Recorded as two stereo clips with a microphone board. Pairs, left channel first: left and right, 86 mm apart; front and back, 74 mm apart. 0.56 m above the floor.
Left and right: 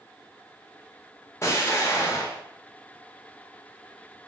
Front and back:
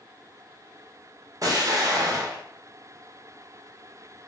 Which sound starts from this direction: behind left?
An explosion, at 1.4 s.